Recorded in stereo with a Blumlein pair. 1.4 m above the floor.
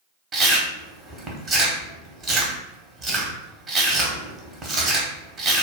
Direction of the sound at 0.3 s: 20° right.